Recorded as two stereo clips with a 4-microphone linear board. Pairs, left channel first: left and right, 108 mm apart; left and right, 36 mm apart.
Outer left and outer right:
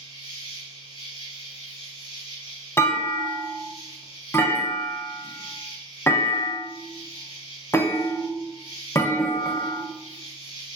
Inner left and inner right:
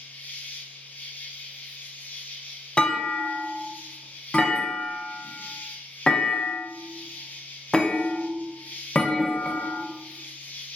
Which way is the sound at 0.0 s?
55° left (ahead or behind).